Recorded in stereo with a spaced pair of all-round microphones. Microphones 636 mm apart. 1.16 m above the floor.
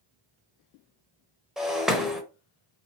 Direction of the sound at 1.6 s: Centre (ahead or behind).